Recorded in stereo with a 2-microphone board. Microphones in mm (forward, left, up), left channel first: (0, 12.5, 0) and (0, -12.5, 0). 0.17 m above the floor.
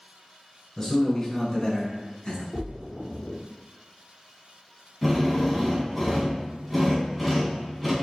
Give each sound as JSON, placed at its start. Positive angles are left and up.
{"t": 0.8, "sound": "a man speaking", "side_deg": 20, "distance_m": 1.5}
{"t": 2.5, "sound": "a splash", "side_deg": 30, "distance_m": 0.9}
{"t": 5.0, "sound": "a drill", "side_deg": -5, "distance_m": 1.3}